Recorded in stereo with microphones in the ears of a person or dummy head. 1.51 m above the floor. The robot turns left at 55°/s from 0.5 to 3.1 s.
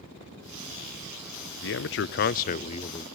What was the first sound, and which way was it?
A man speaking, 100° left.